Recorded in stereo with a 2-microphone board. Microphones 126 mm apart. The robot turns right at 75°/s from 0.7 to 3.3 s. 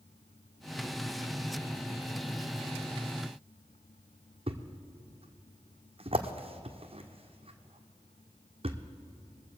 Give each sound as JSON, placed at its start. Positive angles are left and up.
{"t": 4.5, "sound": "a thud", "side_deg": -50, "distance_m": 1.1}